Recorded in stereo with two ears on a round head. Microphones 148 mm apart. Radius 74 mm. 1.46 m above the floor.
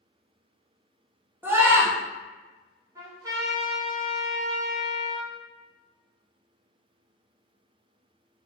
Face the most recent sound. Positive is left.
turn(degrees=-20)  # may be behind; listen again after turning